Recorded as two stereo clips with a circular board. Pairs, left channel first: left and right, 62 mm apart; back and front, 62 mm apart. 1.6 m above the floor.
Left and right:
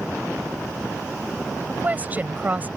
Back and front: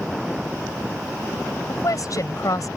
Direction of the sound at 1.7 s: 155° right.